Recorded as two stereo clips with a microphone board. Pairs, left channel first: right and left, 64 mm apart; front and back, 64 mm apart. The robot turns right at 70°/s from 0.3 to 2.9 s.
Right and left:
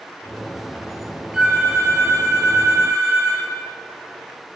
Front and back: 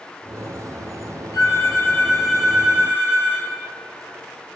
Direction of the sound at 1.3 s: 20° left.